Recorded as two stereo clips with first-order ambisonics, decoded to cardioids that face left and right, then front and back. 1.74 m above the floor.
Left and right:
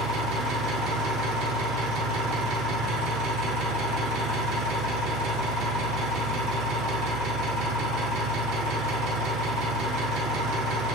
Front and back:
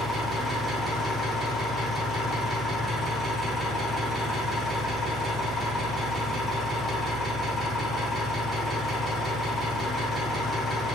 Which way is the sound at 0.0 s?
70° right.